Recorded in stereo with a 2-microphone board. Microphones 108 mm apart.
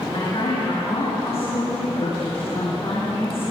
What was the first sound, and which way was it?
A woman speaking, 65° left (ahead or behind).